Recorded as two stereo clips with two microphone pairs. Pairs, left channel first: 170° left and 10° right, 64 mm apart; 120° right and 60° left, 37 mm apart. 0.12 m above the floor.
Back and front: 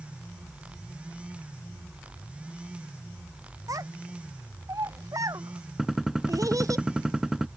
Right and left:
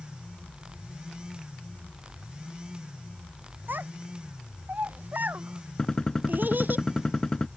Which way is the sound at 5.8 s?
80° right.